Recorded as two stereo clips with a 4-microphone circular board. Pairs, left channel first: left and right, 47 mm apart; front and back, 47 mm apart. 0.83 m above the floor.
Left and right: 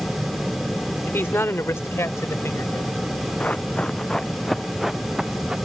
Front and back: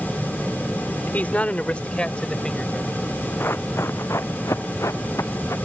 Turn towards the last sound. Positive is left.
turn(degrees=-15)